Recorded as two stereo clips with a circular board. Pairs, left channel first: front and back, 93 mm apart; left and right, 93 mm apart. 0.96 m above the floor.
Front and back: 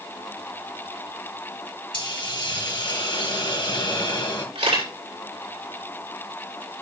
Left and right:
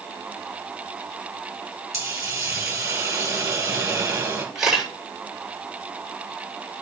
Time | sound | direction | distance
1.9 | a hiss | 30° right | 2.5 m
4.5 | a camera shutter | 175° right | 6 m